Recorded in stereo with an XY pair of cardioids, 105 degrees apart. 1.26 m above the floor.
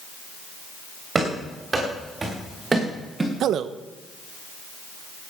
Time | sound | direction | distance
1.1 | running footsteps | 30° right | 8 m
3.4 | a man speaking | 70° right | 1.0 m